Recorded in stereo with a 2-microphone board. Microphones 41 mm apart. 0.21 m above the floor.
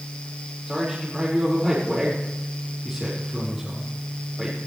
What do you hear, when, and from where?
0.7 s a man speaking: 5° right (ahead or behind), 4.5 m